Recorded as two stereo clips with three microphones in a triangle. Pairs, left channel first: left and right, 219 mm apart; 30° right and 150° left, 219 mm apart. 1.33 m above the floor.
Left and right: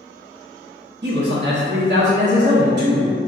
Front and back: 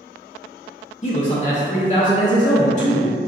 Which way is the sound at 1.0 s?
80° right.